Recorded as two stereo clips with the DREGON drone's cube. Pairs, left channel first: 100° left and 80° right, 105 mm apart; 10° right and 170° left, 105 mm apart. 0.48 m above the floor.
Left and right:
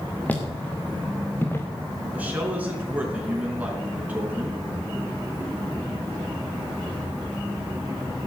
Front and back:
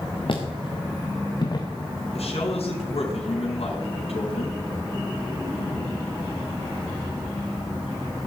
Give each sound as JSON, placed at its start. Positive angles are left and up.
{"t": 0.3, "sound": "footsteps", "azimuth_deg": 25, "distance_m": 3.5}
{"t": 2.1, "sound": "a man speaking", "azimuth_deg": -5, "distance_m": 5.0}